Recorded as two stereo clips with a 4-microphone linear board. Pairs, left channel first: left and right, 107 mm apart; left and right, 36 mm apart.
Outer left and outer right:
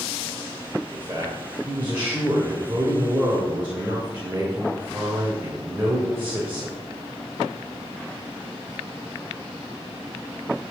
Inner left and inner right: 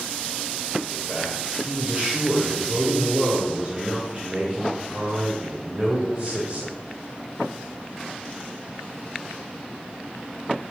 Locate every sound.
0.9 s a man speaking: 20° right (ahead or behind), 2 m